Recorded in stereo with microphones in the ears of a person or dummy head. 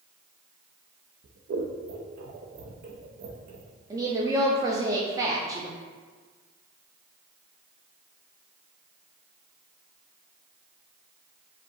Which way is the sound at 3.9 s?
20° right (ahead or behind).